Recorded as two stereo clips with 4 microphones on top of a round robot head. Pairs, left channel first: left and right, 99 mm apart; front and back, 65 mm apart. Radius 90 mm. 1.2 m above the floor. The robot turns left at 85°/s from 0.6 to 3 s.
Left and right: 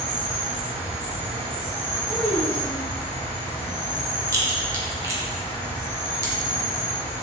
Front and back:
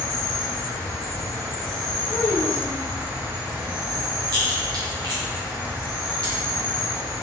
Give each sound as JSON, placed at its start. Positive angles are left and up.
{"t": 0.0, "sound": "an insect", "azimuth_deg": -40, "distance_m": 1.7}
{"t": 2.1, "sound": "a child speaking", "azimuth_deg": -15, "distance_m": 1.7}
{"t": 4.3, "sound": "a crack", "azimuth_deg": -150, "distance_m": 0.9}